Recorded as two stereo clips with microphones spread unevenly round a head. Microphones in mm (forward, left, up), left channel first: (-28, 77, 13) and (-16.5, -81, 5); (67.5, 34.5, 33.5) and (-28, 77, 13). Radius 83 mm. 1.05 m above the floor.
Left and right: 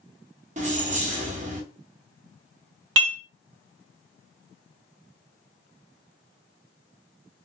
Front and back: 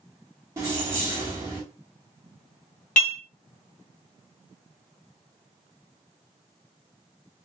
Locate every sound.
0.6 s keys jangling: 130° right, 0.8 m
3.0 s dishes clattering: 60° right, 0.6 m